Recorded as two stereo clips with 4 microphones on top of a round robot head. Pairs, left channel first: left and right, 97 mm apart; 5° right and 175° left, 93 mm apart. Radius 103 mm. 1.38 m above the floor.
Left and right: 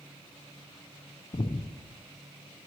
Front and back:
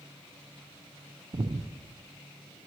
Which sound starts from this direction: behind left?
Breathing, at 1.3 s.